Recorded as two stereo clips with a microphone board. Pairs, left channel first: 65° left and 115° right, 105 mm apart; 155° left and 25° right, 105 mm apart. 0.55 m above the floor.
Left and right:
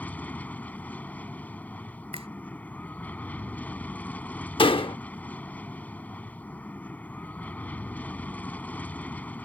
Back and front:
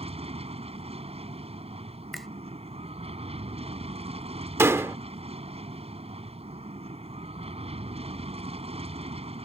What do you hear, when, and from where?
0.0 s an aircraft: 10° right
2.1 s a finger snap: 115° right
4.6 s a door slam: 40° left